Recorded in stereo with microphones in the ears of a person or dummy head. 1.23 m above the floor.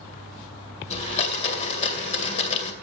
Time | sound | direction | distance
0.9 | a blender | 35° left (ahead or behind) | 2 m